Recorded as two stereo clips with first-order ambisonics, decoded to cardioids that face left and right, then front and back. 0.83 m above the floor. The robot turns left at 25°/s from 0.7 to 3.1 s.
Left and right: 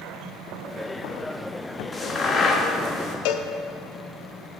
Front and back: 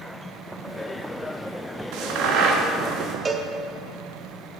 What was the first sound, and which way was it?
A crack, 165° left.